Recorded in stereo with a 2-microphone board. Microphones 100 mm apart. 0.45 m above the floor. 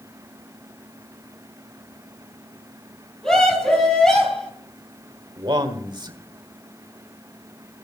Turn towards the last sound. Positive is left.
turn(degrees=-45)  # may be behind; listen again after turning